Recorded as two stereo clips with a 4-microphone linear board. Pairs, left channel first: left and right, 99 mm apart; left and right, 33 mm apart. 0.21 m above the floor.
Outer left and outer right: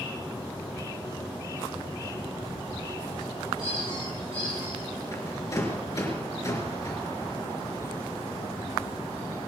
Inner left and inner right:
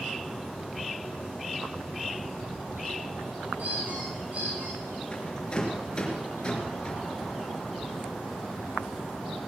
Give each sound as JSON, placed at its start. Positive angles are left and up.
{"t": 3.6, "sound": "a squeak", "side_deg": -65, "distance_m": 9.5}
{"t": 5.1, "sound": "a rattle", "side_deg": 30, "distance_m": 4.0}